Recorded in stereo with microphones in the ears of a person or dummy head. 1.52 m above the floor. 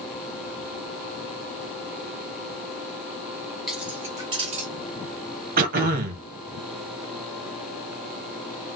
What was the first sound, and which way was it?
Keys jangling, centre (ahead or behind).